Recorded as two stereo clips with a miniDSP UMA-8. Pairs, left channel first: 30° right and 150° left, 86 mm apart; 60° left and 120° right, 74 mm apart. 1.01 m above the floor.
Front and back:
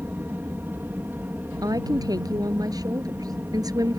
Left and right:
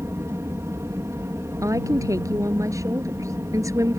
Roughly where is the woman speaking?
Behind.